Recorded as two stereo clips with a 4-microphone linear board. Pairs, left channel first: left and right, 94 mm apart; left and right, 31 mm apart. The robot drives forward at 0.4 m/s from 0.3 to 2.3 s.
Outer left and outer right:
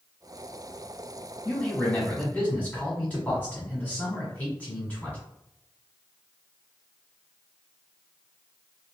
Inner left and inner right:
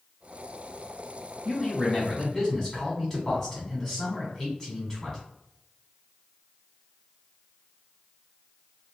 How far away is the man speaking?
About 1.3 m.